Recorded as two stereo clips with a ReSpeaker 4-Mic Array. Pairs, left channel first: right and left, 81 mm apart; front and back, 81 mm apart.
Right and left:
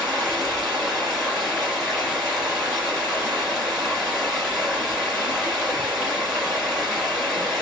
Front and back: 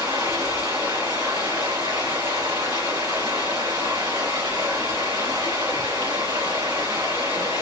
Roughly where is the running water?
Behind.